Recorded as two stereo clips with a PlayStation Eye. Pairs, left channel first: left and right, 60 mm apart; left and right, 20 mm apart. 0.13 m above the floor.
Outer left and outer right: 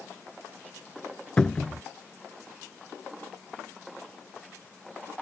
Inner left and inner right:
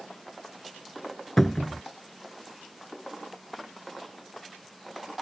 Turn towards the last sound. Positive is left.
turn(degrees=15)  # may be behind; listen again after turning